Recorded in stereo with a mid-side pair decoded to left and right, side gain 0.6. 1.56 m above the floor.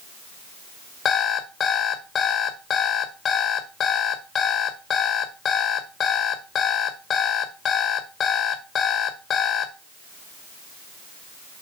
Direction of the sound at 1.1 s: 45° left.